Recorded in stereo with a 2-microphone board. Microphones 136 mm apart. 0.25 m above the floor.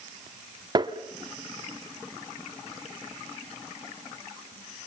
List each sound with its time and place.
0.8 s tapping: 30° right (ahead or behind), 0.9 m